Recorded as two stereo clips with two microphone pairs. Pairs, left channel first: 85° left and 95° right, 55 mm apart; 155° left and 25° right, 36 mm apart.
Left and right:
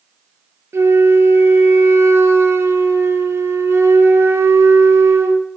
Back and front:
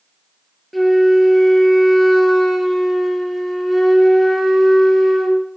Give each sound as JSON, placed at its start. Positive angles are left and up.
{"t": 0.7, "sound": "a flute", "azimuth_deg": -120, "distance_m": 1.5}